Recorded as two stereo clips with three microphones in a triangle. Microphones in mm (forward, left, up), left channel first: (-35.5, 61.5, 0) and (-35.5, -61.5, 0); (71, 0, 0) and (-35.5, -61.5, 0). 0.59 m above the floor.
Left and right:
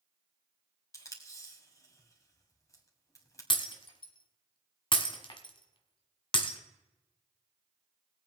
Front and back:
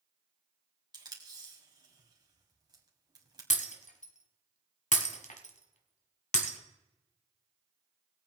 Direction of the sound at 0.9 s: 155° left.